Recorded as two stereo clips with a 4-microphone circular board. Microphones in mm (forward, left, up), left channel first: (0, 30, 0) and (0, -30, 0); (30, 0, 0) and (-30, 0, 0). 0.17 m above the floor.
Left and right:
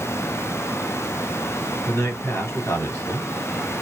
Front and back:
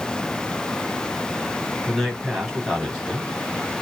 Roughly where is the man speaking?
Left.